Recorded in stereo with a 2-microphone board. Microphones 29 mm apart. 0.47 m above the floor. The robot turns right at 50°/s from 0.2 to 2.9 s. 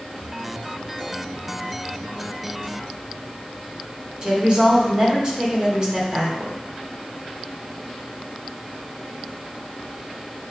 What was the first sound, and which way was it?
A woman speaking, 30° right (ahead or behind).